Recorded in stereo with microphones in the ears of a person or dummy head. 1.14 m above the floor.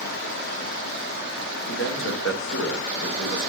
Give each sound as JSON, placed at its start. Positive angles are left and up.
{"t": 1.7, "sound": "a man speaking", "side_deg": 70, "distance_m": 1.4}